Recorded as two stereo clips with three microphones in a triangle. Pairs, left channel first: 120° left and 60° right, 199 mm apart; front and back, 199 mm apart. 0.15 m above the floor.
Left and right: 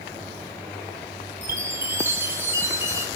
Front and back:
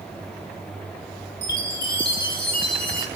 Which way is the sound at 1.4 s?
15° left.